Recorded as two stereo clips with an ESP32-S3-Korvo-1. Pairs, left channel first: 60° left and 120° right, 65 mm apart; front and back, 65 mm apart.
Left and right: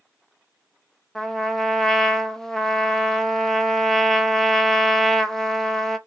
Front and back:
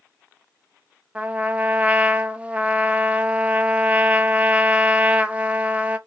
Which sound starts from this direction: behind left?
A trumpet, at 1.1 s.